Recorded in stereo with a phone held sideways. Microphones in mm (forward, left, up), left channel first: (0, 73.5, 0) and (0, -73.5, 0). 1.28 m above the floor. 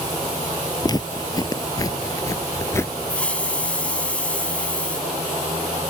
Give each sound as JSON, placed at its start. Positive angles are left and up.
{"t": 0.8, "sound": "footsteps", "side_deg": 30}
{"t": 3.1, "sound": "a hiss", "side_deg": 10}